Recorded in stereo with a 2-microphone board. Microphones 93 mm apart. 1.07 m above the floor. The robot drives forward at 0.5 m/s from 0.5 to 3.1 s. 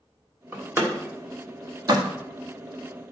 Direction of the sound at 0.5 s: 25° right (ahead or behind).